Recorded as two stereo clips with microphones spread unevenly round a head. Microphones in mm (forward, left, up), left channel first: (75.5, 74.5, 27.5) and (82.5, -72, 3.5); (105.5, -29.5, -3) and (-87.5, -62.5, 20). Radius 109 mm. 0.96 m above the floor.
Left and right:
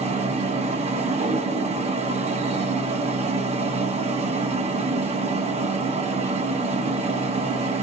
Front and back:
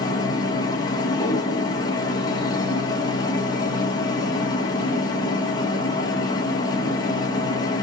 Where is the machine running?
55° right, 1.3 m.